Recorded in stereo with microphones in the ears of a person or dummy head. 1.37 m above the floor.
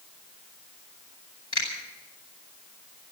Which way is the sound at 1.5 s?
30° left (ahead or behind).